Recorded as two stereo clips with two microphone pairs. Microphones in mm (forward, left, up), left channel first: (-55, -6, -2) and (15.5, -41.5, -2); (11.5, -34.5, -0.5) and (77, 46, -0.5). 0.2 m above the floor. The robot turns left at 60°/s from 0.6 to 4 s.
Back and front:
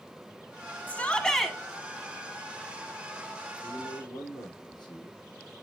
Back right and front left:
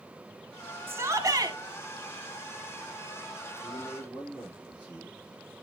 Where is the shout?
100° left, 1.3 m; by 1.6 s 60° left, 1.3 m.